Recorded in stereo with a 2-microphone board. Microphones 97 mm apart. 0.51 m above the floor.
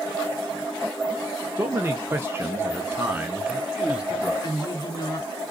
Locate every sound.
1.6 s a man speaking: 20° right (ahead or behind), 0.9 m; by 4.3 s 10° right (ahead or behind), 1.6 m
4.4 s a woman speaking: 45° left (ahead or behind), 1.5 m